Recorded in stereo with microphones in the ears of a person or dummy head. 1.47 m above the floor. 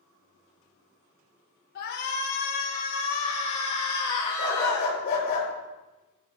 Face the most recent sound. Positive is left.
turn(degrees=55)  # may be behind; listen again after turning